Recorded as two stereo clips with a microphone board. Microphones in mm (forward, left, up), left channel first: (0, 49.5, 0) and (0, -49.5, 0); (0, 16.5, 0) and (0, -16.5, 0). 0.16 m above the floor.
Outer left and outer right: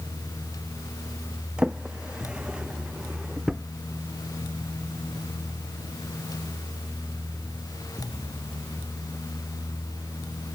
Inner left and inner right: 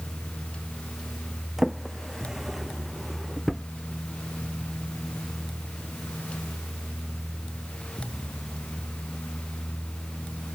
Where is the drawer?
10° right (ahead or behind).